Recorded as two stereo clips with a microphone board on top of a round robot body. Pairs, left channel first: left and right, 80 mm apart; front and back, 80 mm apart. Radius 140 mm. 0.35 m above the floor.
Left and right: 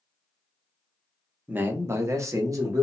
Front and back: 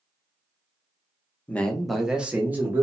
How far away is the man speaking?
About 0.8 m.